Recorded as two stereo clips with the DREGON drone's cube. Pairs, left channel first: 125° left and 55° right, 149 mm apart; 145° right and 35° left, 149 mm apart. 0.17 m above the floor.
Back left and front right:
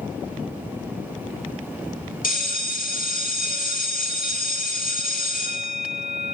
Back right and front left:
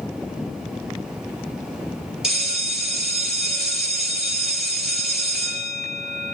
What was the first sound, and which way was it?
A bell, 120° left.